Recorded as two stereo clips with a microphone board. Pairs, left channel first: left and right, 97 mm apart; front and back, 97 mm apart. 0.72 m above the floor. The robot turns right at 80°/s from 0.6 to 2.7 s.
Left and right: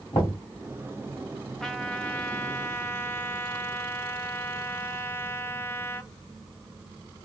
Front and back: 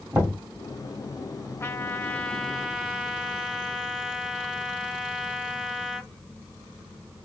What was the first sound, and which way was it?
Knocking, 110° left.